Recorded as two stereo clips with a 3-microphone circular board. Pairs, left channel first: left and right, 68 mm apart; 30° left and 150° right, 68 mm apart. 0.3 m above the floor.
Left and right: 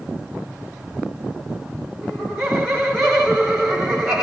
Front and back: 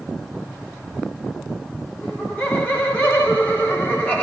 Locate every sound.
2.0 s laughter: 10° right, 1.1 m